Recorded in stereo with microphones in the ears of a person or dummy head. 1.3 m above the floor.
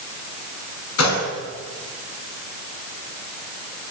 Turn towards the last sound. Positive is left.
turn(degrees=85)